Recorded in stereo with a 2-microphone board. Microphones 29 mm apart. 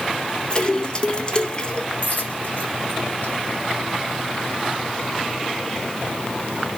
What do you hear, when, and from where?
0.5 s a splash: 30° left (ahead or behind), 1.0 m
2.0 s a dropped coin: 65° left (ahead or behind), 3.5 m